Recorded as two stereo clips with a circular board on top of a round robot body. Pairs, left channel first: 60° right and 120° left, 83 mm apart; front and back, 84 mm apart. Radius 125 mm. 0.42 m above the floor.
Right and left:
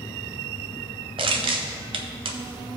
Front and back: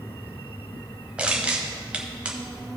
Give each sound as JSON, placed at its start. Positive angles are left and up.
{"t": 1.2, "sound": "crushing", "azimuth_deg": 105, "distance_m": 0.6}